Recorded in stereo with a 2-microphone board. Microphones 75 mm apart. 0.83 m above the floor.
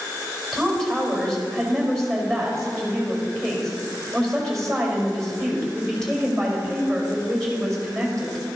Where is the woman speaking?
5° left (ahead or behind), 4.5 m.